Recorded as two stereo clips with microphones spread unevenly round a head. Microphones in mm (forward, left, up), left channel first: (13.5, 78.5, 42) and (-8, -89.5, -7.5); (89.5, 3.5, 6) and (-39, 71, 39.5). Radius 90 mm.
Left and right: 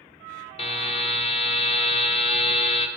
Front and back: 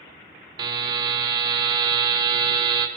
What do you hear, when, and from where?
0.6 s a buzzer: 110° left, 0.8 m